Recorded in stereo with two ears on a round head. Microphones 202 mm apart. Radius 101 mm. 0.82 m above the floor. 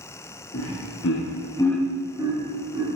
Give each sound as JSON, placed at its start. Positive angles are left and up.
{"t": 0.5, "sound": "laughter", "side_deg": 60, "distance_m": 1.2}